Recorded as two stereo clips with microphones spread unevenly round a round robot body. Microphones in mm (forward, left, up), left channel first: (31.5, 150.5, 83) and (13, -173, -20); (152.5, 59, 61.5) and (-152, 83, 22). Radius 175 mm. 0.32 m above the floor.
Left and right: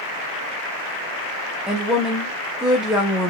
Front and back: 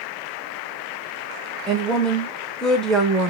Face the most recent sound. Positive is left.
turn(degrees=-110)